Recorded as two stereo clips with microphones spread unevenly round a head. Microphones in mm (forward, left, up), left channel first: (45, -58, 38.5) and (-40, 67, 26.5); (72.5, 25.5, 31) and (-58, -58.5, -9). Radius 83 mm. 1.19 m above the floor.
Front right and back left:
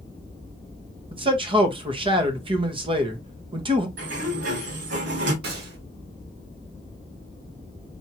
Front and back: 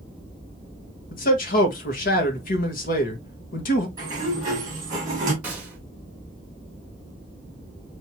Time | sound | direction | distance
1.1 | a man speaking | 75° left | 1.3 m
4.0 | a sliding door | 140° left | 2 m
5.4 | a gunshot | 130° left | 1.7 m